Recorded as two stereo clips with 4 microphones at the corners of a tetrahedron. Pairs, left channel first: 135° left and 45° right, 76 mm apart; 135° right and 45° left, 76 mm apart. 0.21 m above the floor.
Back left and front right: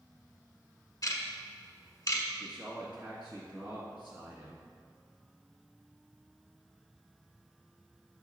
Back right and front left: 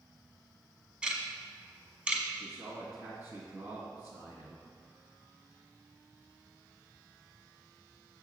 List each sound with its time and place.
1.0 s ticking: 120° left, 1.0 m
2.3 s a man speaking: 25° left, 1.7 m